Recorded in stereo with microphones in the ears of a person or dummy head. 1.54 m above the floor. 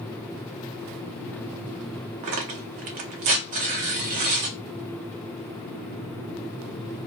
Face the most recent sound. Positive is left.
turn(degrees=-30)  # may be behind; listen again after turning